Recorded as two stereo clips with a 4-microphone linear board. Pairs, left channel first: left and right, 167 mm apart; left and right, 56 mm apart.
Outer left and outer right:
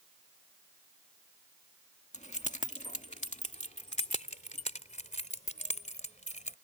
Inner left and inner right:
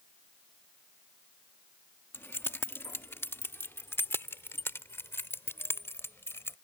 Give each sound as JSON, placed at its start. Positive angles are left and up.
{"t": 2.1, "sound": "keys jangling", "side_deg": 50}